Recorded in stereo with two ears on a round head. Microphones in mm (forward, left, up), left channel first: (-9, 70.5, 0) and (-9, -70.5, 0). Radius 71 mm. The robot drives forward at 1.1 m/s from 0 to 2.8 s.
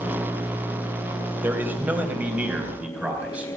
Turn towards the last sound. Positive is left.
turn(degrees=-10)  # may be behind; listen again after turning